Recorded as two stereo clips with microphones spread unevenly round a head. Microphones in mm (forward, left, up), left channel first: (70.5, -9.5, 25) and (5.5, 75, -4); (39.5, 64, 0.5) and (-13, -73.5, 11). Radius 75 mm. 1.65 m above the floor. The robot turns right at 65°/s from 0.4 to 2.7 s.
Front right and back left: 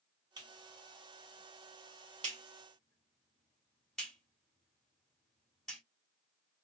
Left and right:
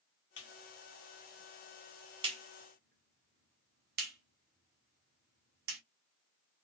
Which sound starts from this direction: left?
A clap, at 0.4 s.